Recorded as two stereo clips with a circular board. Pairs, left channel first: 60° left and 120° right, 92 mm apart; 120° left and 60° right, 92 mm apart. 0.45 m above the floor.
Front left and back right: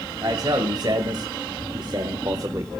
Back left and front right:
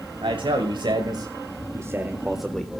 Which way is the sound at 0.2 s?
75° right.